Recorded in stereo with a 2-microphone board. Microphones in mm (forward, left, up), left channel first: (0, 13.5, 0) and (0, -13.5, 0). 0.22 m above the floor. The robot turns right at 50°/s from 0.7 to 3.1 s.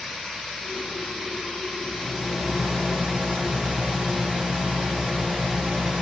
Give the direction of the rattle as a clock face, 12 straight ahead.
6 o'clock.